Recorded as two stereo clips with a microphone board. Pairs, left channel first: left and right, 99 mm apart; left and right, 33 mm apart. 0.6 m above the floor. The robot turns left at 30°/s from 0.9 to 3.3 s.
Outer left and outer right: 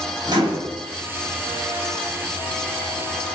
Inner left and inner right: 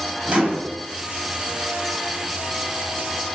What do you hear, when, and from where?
0.3 s a microwave: 40° right (ahead or behind), 0.9 m